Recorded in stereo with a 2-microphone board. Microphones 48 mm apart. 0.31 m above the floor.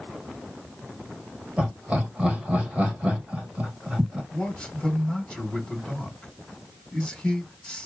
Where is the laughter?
25° right (ahead or behind), 1.3 m.